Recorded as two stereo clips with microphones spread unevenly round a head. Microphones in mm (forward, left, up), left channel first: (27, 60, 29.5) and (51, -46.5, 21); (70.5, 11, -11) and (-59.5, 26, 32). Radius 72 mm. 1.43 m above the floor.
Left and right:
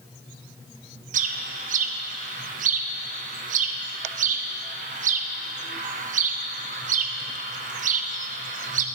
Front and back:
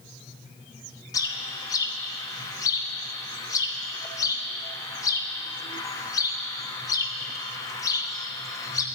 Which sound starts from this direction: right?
A bird, at 1.1 s.